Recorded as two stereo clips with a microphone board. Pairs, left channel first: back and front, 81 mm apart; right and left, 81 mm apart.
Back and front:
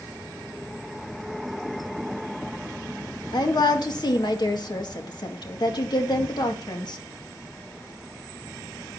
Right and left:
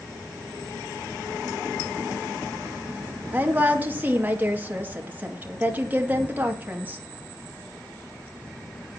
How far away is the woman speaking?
About 2 m.